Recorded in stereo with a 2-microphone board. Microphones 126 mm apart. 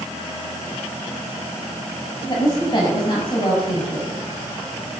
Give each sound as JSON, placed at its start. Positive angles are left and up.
{"t": 2.3, "sound": "a woman speaking", "side_deg": 40, "distance_m": 5.0}